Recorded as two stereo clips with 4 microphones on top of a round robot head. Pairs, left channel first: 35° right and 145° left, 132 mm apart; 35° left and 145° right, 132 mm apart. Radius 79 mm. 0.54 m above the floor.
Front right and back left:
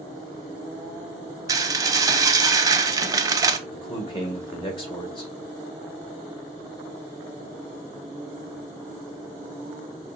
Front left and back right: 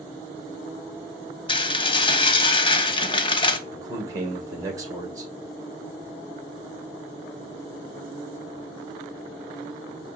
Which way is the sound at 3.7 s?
80° right.